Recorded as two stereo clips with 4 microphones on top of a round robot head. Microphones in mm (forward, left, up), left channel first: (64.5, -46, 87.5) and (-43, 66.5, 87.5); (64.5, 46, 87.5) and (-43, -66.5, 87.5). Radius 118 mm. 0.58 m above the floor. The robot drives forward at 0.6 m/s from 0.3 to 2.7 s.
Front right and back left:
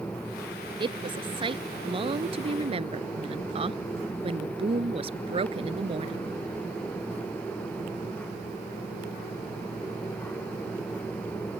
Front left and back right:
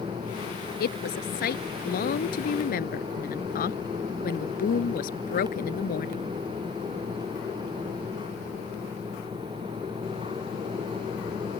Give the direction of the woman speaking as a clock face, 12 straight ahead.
10 o'clock.